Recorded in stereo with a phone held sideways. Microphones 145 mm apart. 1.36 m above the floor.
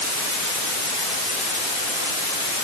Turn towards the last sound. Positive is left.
No sound to turn to.